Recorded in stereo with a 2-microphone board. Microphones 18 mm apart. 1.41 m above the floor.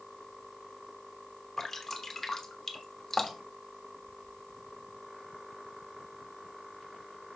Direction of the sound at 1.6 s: 15° left (ahead or behind).